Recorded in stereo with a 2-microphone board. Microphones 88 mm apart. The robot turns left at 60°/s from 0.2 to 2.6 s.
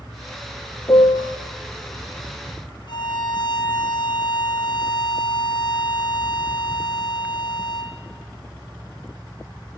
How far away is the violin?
About 1.3 m.